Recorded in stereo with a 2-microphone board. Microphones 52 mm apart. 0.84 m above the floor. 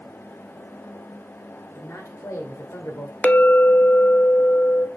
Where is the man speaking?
65° left (ahead or behind), 3 m; by 3.1 s 70° left (ahead or behind), 3 m.